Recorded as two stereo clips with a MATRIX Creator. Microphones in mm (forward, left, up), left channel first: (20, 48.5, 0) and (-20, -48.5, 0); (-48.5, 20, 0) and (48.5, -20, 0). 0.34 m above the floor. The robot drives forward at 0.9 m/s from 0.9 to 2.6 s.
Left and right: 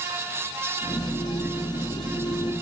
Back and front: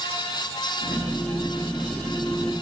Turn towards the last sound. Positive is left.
No sound to turn to.